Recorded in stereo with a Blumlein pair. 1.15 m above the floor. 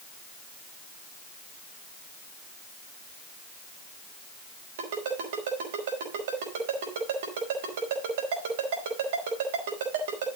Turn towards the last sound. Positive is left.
turn(degrees=-55)